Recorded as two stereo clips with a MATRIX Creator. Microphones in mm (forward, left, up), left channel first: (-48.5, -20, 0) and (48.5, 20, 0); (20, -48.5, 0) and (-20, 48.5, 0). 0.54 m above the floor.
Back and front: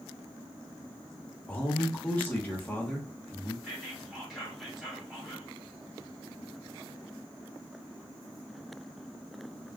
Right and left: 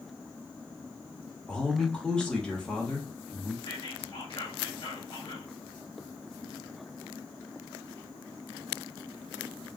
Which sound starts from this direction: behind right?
A man speaking, at 1.5 s.